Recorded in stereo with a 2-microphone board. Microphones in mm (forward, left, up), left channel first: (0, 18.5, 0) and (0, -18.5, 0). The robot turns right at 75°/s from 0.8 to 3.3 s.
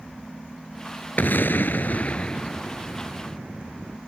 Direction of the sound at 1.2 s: 60° left.